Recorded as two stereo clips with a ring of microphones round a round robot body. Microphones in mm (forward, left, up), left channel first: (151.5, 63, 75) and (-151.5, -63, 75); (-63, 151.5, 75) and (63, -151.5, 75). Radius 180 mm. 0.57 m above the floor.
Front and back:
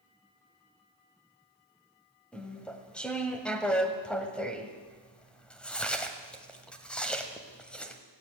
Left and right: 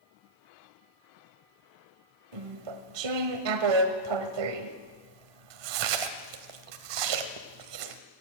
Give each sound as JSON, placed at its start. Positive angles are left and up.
{"t": 2.3, "sound": "chewing", "azimuth_deg": -65, "distance_m": 1.3}